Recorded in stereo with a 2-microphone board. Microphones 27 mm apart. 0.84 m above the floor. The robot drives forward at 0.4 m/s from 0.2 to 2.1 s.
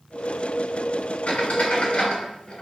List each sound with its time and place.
1.3 s a squeak: 70° left (ahead or behind), 1.4 m; by 2.6 s 60° left (ahead or behind), 1.6 m